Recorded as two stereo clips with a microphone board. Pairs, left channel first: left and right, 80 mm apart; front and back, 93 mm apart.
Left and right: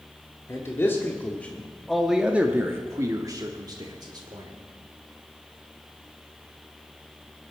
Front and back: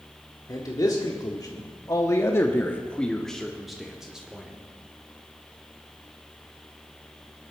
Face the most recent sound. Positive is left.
turn(degrees=-100)